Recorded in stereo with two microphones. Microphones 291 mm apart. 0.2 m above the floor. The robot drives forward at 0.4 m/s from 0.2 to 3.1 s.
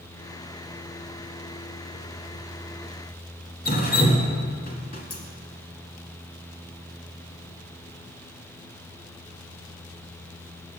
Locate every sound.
3.6 s dripping: 35° left (ahead or behind), 1.4 m